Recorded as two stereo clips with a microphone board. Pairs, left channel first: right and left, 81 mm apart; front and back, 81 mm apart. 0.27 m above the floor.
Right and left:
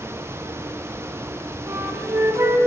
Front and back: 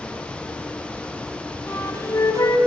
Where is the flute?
40° left, 1.1 m.